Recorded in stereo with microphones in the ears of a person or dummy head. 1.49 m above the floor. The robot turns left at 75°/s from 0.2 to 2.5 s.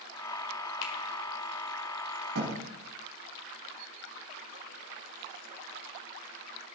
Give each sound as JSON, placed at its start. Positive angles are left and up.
{"t": 0.8, "sound": "a finger snap", "side_deg": 60, "distance_m": 1.5}
{"t": 2.4, "sound": "a thud", "side_deg": -75, "distance_m": 4.0}